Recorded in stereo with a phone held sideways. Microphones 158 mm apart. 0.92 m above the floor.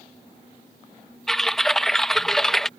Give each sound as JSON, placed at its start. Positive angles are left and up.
{"t": 1.3, "sound": "typing on a keyboard", "side_deg": 5}